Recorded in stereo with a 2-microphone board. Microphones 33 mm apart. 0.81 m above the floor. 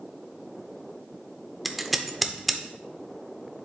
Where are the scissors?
5° right (ahead or behind), 0.8 m.